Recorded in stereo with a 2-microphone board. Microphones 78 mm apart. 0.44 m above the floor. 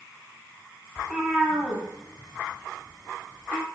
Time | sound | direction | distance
1.0 | a cat meowing | 5° right (ahead or behind) | 0.9 m